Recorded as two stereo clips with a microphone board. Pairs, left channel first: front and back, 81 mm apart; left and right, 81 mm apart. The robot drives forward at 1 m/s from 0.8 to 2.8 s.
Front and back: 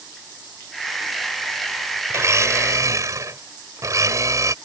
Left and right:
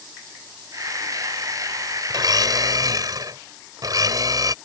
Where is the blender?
125° right; by 4.5 s 130° right.